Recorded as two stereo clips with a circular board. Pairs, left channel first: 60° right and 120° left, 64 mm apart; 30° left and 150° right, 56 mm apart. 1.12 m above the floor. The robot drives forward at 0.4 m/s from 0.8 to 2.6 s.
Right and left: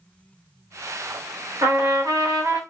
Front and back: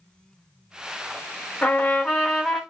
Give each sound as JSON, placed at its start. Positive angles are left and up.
{"t": 1.6, "sound": "a trumpet", "azimuth_deg": 90, "distance_m": 1.1}